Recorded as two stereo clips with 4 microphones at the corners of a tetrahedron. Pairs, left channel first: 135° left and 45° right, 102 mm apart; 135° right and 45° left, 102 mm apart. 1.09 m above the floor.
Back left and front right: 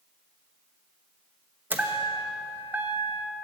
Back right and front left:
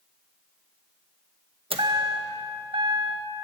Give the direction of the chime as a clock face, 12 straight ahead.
11 o'clock.